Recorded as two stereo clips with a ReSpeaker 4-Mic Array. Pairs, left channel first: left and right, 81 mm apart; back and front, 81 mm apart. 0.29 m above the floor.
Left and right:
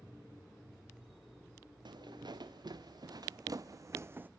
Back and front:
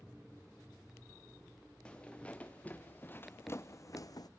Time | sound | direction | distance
1.9 | footsteps | 105° right | 2 m